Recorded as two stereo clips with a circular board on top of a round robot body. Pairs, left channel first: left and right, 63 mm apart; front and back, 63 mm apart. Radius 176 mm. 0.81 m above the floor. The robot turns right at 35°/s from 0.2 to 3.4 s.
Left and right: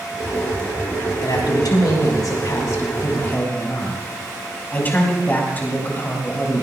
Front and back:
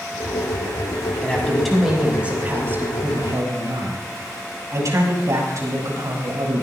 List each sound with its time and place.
1.2 s a man speaking: 75° left, 5.5 m; by 6.6 s 150° left, 5.5 m